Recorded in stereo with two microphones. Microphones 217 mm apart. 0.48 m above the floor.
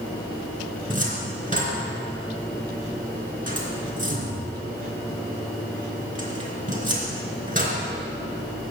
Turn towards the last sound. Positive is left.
turn(degrees=-35)  # may be behind; listen again after turning